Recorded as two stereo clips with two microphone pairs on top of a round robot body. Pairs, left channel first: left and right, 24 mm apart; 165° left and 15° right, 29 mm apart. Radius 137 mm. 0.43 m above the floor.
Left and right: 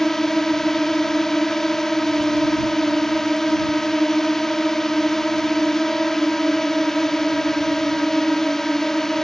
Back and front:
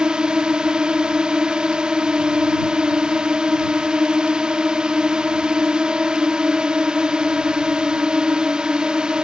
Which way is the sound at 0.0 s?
20° left.